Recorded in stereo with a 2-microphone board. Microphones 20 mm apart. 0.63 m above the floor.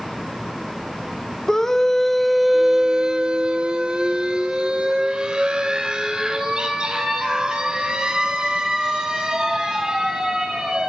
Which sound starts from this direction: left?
A scream, at 1.5 s.